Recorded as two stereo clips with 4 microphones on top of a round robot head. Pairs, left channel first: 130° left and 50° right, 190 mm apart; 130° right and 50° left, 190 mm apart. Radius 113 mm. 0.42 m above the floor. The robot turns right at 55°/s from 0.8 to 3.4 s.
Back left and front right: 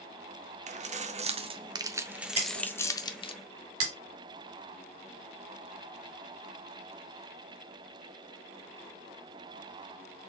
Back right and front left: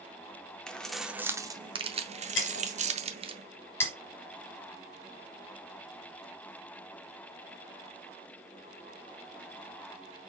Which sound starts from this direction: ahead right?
Keys jangling, at 0.7 s.